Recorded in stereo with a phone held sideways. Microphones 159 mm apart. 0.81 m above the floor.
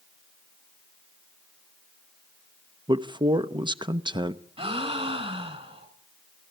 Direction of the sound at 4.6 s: 35° right (ahead or behind).